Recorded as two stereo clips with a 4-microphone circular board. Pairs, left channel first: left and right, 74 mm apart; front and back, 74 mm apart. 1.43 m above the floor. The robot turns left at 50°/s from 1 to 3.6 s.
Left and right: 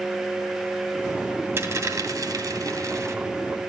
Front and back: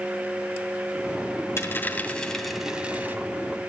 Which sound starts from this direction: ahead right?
A dropped coin, at 1.6 s.